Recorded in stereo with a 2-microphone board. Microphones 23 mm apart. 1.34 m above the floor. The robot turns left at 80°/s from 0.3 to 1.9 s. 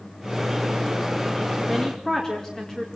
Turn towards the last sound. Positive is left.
turn(degrees=25)  # may be behind; listen again after turning